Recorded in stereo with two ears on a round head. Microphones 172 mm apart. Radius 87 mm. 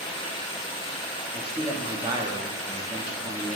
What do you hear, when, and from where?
0.0 s running water: 25° left (ahead or behind), 1.3 m
1.3 s a man speaking: 20° right (ahead or behind), 0.7 m